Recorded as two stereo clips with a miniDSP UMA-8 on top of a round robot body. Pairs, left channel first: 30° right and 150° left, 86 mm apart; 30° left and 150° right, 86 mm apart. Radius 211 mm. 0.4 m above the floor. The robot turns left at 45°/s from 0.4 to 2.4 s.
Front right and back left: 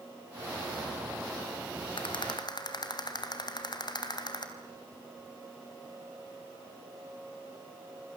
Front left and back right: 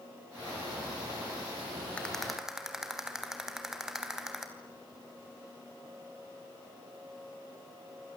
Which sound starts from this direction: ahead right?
A rattle, at 2.0 s.